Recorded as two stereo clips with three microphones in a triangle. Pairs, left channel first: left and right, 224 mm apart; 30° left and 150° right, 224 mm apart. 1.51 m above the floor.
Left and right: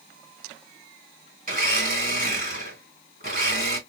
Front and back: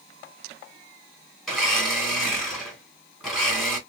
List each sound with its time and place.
1.5 s a blender: 55° right, 1.9 m